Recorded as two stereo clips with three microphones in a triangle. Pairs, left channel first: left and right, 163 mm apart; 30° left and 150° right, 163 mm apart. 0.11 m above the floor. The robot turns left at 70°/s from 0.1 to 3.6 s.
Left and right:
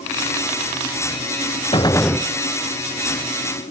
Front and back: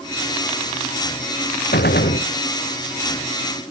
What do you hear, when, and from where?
1.7 s a gunshot: 35° left; by 2.3 s 5° right